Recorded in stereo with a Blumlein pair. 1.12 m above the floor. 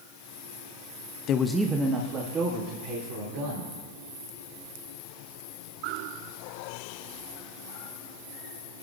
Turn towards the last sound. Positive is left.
turn(degrees=-50)